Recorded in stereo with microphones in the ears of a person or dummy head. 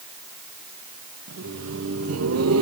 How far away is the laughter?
About 1.8 m.